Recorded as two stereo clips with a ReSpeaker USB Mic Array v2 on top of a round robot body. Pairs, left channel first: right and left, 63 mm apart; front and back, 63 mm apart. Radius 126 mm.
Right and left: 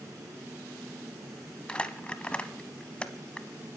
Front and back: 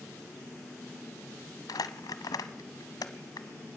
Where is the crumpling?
15° right, 1.1 m.